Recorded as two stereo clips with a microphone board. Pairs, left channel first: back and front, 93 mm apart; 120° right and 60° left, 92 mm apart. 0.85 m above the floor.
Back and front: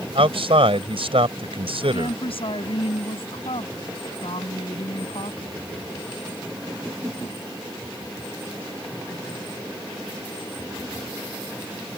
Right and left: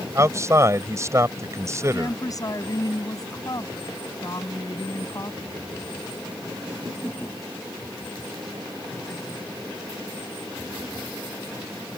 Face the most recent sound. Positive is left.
turn(degrees=-170)